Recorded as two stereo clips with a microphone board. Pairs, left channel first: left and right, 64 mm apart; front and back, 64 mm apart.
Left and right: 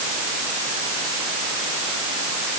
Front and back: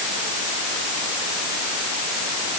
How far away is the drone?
I don't hear a drone.